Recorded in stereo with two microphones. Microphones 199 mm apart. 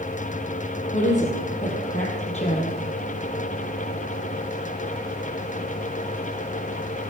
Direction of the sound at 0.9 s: 40° left (ahead or behind).